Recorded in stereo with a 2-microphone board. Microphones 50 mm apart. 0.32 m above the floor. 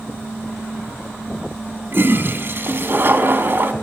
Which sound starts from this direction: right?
A toilet flushing, at 1.9 s.